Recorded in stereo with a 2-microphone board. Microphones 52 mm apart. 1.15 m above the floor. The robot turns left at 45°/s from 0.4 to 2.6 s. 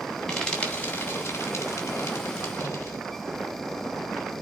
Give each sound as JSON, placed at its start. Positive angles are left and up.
{"t": 0.3, "sound": "frying", "side_deg": 10, "distance_m": 2.5}